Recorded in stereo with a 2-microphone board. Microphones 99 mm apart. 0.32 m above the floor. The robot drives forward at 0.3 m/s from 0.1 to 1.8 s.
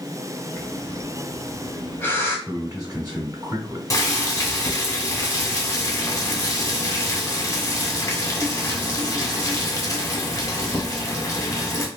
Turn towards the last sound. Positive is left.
turn(degrees=30)  # may be behind; listen again after turning